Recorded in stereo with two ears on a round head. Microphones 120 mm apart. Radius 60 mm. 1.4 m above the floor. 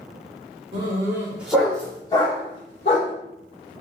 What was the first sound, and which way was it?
A dog barking, 35° right (ahead or behind).